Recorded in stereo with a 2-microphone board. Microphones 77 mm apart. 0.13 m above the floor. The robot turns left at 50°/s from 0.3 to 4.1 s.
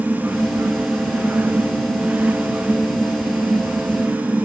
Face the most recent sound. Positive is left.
No sound to turn to.